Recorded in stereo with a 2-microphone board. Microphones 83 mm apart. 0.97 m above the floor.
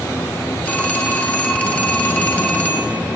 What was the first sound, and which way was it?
A phone ringing, 20° left (ahead or behind).